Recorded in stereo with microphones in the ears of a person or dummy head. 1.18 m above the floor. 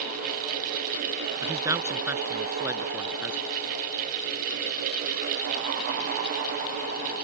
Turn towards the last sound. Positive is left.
turn(degrees=-5)  # may be behind; listen again after turning